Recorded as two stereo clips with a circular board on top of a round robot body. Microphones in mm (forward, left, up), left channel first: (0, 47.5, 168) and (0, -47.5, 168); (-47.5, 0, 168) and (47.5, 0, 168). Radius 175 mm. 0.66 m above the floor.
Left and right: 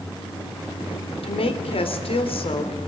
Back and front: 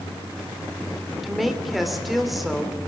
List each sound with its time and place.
1.2 s a woman speaking: 90° left, 3 m